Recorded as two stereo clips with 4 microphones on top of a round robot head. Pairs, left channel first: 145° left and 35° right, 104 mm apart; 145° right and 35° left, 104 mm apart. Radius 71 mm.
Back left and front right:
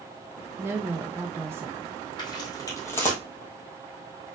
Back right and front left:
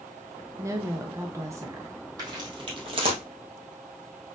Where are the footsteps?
95° left, 2 m; by 3.2 s 65° left, 1.7 m.